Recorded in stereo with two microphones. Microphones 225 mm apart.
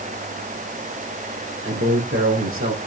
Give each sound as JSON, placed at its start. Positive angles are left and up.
{"t": 1.6, "sound": "a man speaking", "side_deg": -65, "distance_m": 4.0}